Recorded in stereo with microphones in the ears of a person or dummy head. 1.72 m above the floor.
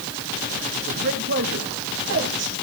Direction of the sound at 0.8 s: 60° right (ahead or behind).